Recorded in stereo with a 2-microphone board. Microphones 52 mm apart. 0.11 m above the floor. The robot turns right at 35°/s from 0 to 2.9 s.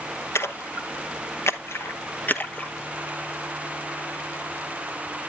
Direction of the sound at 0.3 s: 55° left (ahead or behind).